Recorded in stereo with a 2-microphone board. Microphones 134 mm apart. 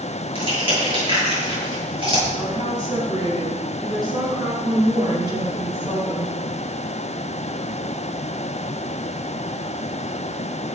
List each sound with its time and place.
0.3 s crushing: 40° right (ahead or behind), 8.5 m
2.4 s a woman speaking: 30° right (ahead or behind), 7.5 m